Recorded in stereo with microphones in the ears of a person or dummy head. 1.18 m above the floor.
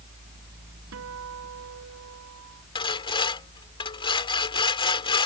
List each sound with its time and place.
0.9 s a guitar: 75° right (ahead or behind)
2.8 s sawing: 25° left (ahead or behind)